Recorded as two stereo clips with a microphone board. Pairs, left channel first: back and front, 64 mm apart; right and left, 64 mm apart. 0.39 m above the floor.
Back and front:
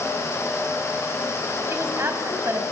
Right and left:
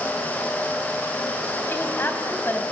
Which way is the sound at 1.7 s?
40° right.